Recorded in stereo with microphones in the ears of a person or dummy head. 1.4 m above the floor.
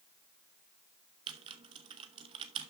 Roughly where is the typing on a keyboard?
Right.